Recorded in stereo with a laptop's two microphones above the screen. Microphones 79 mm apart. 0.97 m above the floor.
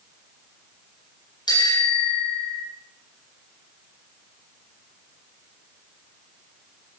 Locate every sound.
1.5 s a bicycle bell: 70° left (ahead or behind), 9.5 m